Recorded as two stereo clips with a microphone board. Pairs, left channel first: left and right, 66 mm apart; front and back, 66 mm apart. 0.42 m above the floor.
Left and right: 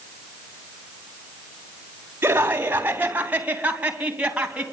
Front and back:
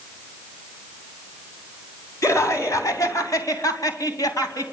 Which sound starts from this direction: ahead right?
Laughter, at 2.2 s.